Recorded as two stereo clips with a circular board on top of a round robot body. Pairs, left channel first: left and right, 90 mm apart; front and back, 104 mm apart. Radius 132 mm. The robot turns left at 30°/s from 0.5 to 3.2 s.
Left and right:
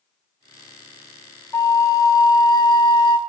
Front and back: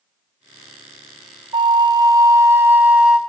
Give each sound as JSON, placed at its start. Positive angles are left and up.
{"t": 1.5, "sound": "a flute", "azimuth_deg": 145, "distance_m": 0.5}